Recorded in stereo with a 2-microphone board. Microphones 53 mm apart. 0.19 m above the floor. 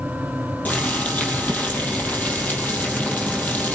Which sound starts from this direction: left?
Boiling, at 0.7 s.